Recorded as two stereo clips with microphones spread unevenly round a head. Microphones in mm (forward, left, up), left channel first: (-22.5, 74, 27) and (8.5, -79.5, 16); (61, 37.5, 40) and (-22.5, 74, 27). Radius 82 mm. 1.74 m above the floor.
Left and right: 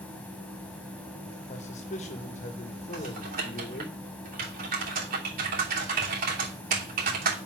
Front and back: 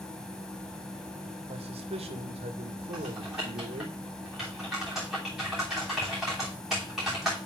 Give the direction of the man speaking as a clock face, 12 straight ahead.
7 o'clock.